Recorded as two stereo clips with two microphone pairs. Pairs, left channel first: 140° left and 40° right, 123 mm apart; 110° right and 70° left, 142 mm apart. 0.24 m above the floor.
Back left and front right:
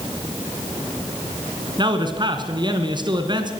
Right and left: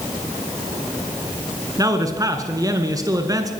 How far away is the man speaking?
About 2.5 m.